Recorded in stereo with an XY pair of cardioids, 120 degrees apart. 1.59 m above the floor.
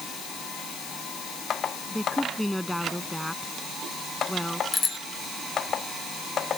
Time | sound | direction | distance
1.9 | a woman speaking | 5° left | ?
4.7 | a bicycle bell | 35° left | ?